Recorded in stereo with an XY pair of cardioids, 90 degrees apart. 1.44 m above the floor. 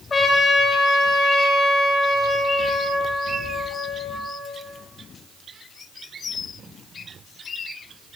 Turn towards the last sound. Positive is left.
turn(degrees=40)